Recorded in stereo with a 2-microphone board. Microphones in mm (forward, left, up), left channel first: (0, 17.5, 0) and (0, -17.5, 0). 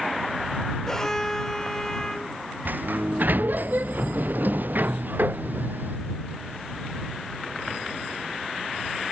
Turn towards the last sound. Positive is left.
turn(degrees=-60)  # may be behind; listen again after turning